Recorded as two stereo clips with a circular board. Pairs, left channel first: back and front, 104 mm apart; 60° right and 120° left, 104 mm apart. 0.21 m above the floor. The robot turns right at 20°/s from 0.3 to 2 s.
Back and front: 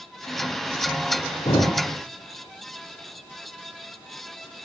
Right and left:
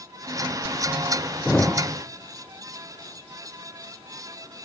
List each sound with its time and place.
1.4 s a thud: 145° right, 6 m; by 1.7 s 140° right, 6 m